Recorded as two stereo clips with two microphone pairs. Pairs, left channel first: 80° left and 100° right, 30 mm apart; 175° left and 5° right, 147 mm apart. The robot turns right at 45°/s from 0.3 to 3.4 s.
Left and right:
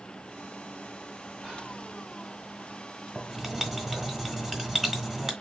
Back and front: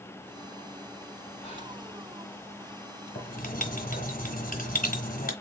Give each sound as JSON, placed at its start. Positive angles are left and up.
{"t": 1.4, "sound": "whispering", "azimuth_deg": -160, "distance_m": 2.0}
{"t": 3.1, "sound": "writing", "azimuth_deg": 170, "distance_m": 1.6}